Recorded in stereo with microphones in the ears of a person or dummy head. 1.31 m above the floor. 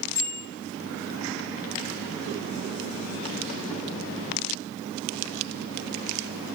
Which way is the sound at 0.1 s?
25° left (ahead or behind).